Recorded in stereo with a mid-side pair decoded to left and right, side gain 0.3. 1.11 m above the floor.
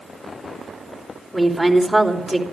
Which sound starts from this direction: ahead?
A woman speaking, at 1.3 s.